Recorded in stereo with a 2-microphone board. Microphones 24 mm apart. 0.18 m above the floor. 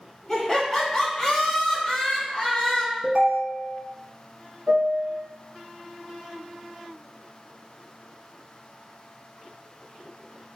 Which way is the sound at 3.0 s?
45° right (ahead or behind).